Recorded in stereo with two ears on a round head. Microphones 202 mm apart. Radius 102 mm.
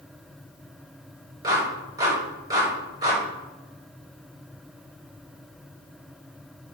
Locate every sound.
1.4 s a clap: 20° right (ahead or behind), 5 m